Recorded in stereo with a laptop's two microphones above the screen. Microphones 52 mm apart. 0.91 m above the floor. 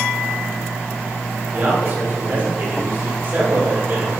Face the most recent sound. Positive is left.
turn(degrees=-40)  # may be behind; listen again after turning